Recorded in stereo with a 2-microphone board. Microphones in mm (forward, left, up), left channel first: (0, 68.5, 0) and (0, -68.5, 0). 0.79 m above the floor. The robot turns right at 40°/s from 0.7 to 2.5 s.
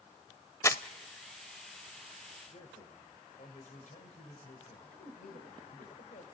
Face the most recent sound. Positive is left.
turn(degrees=80)